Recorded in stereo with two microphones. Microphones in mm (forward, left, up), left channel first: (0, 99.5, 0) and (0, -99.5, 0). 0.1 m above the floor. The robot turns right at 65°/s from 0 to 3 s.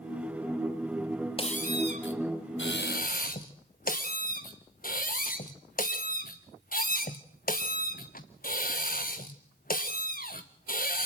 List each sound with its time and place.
1.4 s a squeak: 30° left, 1.5 m; by 11.1 s 135° left, 1.5 m